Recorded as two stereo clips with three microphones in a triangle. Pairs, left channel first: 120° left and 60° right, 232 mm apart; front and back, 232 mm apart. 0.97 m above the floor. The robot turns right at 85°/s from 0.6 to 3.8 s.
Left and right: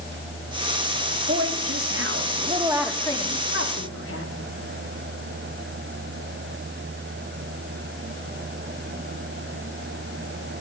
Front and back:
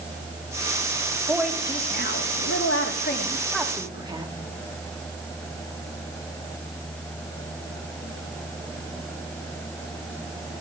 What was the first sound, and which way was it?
A woman speaking, 105° right.